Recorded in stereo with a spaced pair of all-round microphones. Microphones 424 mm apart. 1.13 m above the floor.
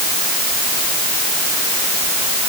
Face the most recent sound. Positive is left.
No sound to turn to.